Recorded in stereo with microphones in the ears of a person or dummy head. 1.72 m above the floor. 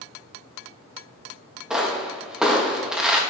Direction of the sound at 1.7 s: 5° right (ahead or behind).